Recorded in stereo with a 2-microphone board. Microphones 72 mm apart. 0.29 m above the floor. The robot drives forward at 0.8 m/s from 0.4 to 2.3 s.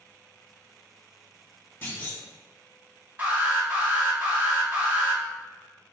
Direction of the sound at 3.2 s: 25° right (ahead or behind).